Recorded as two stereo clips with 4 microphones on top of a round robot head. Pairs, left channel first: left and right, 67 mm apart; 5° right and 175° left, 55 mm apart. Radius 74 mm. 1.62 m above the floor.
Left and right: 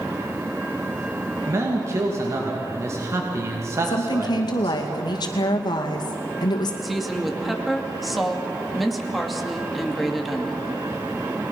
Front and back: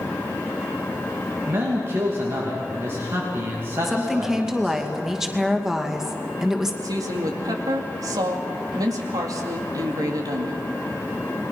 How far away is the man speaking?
About 3 m.